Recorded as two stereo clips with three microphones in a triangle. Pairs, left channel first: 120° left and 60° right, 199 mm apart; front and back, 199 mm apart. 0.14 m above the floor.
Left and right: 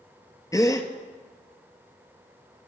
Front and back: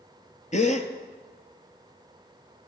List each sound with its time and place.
0.5 s a gasp: 45° left, 1.1 m